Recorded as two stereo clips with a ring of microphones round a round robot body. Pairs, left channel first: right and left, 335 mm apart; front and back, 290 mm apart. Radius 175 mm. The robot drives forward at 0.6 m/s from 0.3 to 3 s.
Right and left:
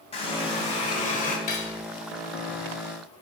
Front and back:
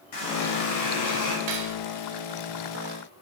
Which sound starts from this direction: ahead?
A running tap, at 0.1 s.